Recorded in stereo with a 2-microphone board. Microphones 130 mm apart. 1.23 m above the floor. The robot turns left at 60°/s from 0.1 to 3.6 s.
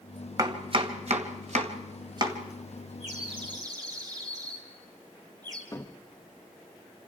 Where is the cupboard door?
25° left (ahead or behind), 1.2 m.